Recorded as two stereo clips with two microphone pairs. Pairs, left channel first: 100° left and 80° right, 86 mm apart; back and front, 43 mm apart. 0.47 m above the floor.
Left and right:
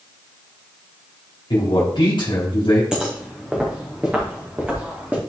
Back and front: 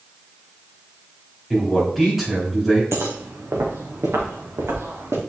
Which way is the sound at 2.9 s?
Straight ahead.